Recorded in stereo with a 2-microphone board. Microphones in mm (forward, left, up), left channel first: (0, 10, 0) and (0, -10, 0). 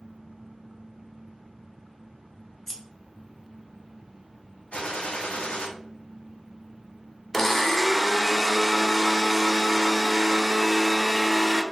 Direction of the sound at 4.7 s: 70° left (ahead or behind).